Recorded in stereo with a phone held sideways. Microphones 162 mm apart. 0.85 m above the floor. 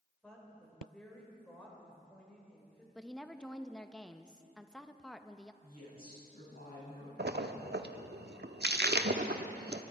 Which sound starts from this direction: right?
A splash, at 7.2 s.